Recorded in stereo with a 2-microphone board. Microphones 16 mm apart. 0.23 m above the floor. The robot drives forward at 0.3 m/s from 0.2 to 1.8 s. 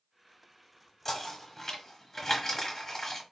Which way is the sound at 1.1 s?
20° left (ahead or behind).